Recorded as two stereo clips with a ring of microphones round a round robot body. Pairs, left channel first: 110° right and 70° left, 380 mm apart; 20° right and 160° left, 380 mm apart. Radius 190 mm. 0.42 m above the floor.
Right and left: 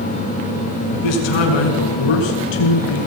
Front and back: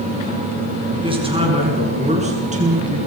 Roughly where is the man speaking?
Behind right.